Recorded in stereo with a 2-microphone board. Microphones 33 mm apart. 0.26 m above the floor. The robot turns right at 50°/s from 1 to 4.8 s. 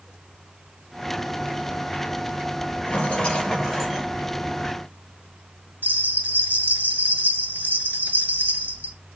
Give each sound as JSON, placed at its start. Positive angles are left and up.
{"t": 2.9, "sound": "a rattle", "azimuth_deg": 135, "distance_m": 1.8}
{"t": 5.8, "sound": "a bell", "side_deg": -60, "distance_m": 0.7}